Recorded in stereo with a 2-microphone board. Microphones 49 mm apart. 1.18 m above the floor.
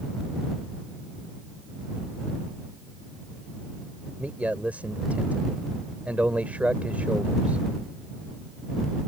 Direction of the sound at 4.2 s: 30° right (ahead or behind).